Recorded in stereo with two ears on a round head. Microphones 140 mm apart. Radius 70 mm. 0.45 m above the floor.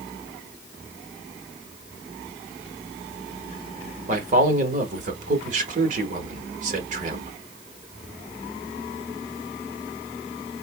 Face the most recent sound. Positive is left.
turn(degrees=-50)  # may be behind; listen again after turning